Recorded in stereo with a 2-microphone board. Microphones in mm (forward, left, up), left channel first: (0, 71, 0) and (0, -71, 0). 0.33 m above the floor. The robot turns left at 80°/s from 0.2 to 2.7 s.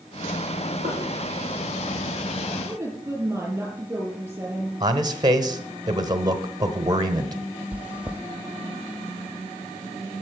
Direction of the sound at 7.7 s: 10° right (ahead or behind).